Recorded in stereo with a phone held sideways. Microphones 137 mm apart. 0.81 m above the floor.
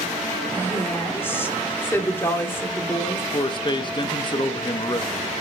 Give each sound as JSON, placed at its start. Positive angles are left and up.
{"t": 0.5, "sound": "a woman speaking", "side_deg": 15, "distance_m": 1.8}
{"t": 3.3, "sound": "a man speaking", "side_deg": 35, "distance_m": 0.7}